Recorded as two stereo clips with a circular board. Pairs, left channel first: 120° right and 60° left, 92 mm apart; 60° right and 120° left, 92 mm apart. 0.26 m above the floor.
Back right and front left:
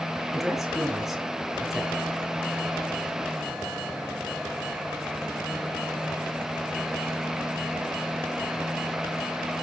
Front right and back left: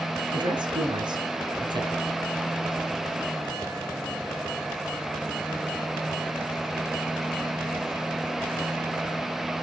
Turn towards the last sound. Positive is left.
turn(degrees=145)